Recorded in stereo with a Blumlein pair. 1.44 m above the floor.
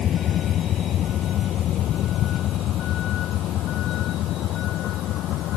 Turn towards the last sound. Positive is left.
turn(degrees=35)